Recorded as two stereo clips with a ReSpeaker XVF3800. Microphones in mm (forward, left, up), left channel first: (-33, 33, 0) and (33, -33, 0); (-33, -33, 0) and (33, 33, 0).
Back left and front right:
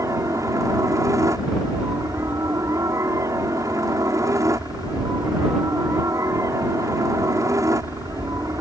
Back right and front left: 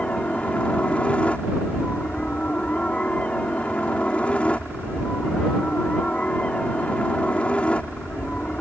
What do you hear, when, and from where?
0.0 s a helicopter: 65° right